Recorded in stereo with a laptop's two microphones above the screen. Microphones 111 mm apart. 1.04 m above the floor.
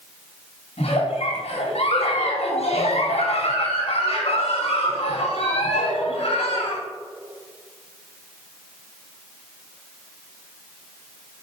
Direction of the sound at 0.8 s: 70° left (ahead or behind).